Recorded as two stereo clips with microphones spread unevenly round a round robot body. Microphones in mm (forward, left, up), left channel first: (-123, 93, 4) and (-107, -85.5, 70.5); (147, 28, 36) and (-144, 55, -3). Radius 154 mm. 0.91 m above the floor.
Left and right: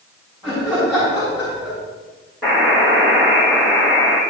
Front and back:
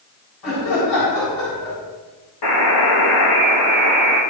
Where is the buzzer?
5° right, 6.5 m.